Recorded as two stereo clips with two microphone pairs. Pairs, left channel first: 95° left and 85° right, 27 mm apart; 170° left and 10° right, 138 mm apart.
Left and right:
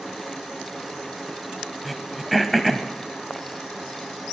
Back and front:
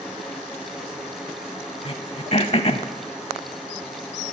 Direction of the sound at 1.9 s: Straight behind.